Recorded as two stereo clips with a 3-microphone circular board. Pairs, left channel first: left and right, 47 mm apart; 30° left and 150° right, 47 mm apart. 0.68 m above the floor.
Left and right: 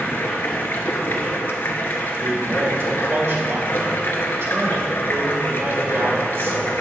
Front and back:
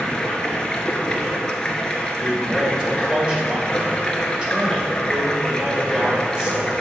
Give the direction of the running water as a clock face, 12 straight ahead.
9 o'clock.